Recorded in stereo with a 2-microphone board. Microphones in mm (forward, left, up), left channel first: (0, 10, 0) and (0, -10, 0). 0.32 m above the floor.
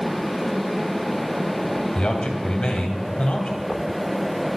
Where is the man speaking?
50° left (ahead or behind), 1.7 m.